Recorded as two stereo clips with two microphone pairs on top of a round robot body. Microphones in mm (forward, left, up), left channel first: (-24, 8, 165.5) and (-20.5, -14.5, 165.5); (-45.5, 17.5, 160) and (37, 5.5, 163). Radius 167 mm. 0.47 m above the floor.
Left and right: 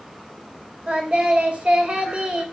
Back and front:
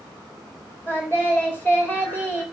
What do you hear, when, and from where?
0.9 s singing: 120° right, 4 m